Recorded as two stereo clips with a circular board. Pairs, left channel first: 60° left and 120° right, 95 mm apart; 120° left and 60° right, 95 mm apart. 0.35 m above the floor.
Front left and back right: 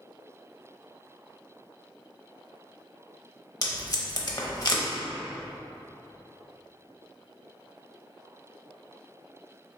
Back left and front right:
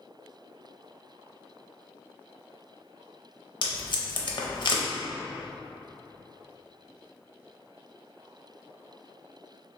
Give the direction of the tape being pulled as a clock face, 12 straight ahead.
9 o'clock.